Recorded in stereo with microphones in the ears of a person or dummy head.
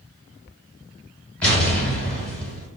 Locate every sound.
1.4 s an explosion: 5° left (ahead or behind), 1.8 m